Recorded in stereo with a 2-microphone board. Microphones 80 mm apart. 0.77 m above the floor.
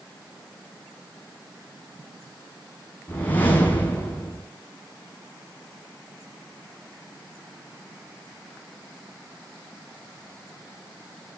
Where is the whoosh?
20° left (ahead or behind), 7.5 m.